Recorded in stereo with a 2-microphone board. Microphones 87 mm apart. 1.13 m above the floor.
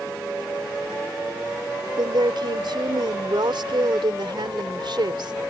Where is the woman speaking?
70° right (ahead or behind).